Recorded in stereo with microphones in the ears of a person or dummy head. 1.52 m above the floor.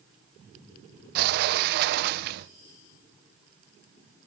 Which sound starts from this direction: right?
A sliding door, at 1.1 s.